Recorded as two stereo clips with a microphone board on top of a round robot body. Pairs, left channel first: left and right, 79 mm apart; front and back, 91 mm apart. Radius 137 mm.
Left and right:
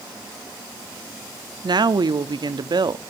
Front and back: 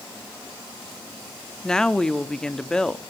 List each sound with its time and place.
1.6 s a woman speaking: 80° right, 1.2 m